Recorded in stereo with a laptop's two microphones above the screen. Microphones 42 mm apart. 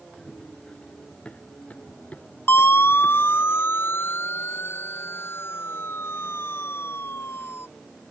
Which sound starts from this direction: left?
A siren, at 2.5 s.